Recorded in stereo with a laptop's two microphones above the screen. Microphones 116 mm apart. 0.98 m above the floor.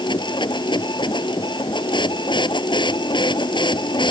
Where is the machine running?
40° left (ahead or behind).